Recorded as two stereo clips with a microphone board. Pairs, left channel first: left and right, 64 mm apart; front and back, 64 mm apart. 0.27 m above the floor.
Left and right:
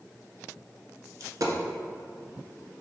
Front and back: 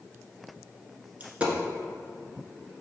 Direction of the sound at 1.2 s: 110° right.